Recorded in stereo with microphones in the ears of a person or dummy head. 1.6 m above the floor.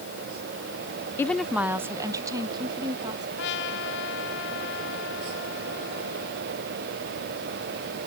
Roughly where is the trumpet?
Left.